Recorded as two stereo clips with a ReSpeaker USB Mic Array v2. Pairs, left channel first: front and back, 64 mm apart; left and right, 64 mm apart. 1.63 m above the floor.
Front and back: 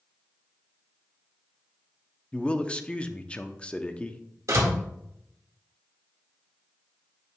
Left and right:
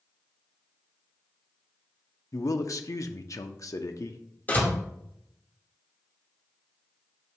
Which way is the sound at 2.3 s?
70° left.